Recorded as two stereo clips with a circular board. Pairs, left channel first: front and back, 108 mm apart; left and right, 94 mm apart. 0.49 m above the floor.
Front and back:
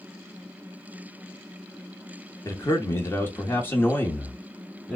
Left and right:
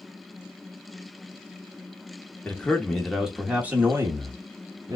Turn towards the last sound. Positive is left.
turn(degrees=-80)